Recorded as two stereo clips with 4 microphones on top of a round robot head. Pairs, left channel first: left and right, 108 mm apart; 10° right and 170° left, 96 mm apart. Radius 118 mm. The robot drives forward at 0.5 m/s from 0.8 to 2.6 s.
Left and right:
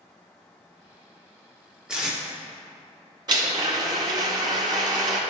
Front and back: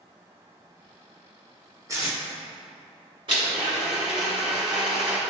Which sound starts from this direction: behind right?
A blender, at 3.3 s.